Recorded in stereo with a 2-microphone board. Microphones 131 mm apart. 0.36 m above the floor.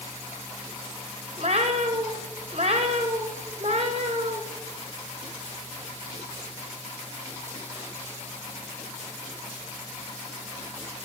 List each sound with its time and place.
1.4 s a cat meowing: 50° right (ahead or behind), 1.5 m